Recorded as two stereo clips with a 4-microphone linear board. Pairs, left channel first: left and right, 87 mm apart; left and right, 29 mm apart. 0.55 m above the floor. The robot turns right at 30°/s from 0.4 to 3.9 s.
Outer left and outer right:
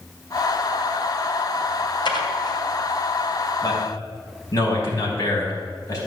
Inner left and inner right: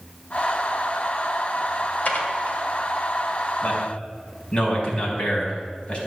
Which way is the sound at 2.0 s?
65° left (ahead or behind).